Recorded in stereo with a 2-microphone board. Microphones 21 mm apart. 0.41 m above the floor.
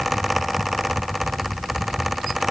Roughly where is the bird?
No bird in this recording.